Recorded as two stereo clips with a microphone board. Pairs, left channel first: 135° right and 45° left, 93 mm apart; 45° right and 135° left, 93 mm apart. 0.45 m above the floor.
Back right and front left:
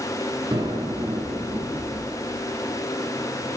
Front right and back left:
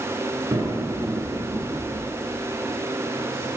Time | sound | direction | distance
0.5 | an explosion | 80° left | 8.5 m